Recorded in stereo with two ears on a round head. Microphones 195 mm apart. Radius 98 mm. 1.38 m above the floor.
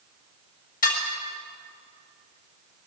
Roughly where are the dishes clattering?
Left.